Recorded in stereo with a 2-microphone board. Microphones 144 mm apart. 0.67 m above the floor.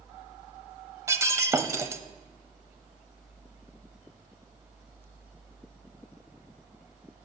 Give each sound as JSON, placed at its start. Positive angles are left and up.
{"t": 1.1, "sound": "breaking glass", "side_deg": -20, "distance_m": 0.7}